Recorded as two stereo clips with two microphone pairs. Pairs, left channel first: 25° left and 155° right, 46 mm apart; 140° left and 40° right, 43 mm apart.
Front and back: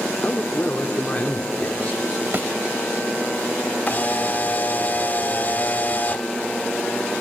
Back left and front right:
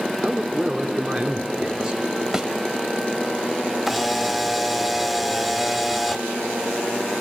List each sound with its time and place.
0.2 s a man speaking: 20° left, 1.0 m
2.3 s a thud: 120° right, 0.9 m
3.9 s a camera shutter: 55° left, 0.6 m